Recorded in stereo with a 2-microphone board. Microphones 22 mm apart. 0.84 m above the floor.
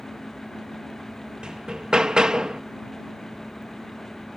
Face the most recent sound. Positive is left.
turn(degrees=-45)  # may be behind; listen again after turning